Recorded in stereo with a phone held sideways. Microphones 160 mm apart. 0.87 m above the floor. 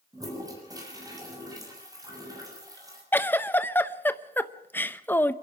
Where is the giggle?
10° left (ahead or behind), 0.7 m.